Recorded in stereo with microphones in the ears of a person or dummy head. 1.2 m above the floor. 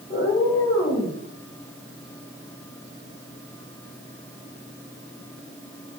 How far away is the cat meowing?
About 2.0 m.